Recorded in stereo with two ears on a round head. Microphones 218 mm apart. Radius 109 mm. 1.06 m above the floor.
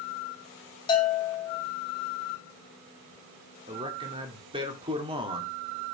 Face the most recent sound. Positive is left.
turn(degrees=-20)  # may be behind; listen again after turning